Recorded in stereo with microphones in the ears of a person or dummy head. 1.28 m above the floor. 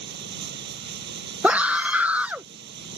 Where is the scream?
10° right (ahead or behind).